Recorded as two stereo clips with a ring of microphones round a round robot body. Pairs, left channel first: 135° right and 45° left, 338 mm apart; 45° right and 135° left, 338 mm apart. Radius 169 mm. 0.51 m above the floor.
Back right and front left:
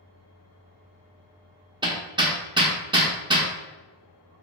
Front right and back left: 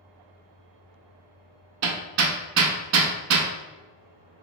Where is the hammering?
120° left, 0.6 m.